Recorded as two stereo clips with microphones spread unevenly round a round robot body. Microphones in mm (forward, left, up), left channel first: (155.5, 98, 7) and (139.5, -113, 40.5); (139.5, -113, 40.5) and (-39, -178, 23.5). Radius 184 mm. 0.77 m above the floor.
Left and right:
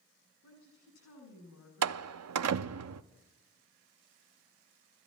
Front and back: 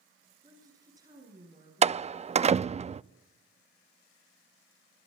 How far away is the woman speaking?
About 7 m.